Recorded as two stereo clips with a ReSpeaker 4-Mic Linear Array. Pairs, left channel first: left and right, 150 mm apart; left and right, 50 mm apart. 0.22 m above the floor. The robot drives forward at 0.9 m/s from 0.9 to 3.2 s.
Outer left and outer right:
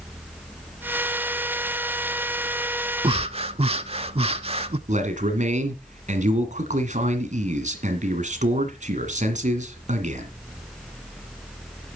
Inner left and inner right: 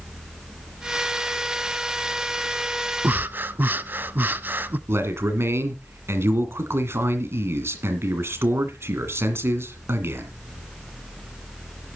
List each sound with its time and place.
3.0 s breathing: 40° right (ahead or behind), 0.6 m
4.9 s a man speaking: 55° right (ahead or behind), 2.0 m